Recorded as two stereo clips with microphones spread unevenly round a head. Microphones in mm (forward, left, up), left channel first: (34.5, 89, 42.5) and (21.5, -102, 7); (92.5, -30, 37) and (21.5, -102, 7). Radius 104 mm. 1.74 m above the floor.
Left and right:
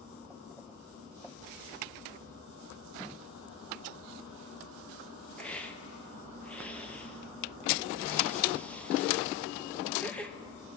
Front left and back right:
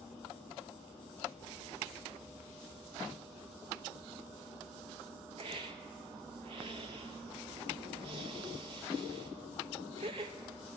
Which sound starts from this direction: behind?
A hiss, at 5.4 s.